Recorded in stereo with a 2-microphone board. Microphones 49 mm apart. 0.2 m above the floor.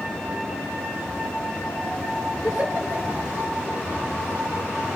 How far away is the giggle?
About 3.5 m.